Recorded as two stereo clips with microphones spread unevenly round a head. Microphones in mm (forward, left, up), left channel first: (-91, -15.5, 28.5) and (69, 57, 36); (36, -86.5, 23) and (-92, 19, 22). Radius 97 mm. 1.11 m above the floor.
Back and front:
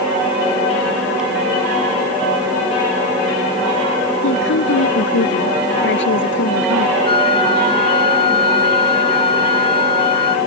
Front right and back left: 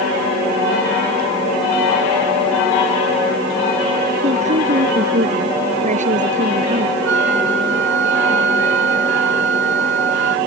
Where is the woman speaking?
170° right; by 7.0 s 175° right.